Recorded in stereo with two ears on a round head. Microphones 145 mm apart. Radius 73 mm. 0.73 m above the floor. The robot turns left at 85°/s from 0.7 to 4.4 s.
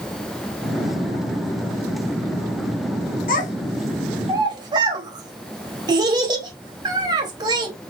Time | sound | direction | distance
3.3 | a child speaking | 60° left (ahead or behind) | 1.8 m